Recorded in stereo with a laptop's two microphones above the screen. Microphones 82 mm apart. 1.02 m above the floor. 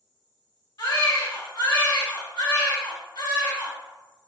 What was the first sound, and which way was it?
A baby crying, 70° left (ahead or behind).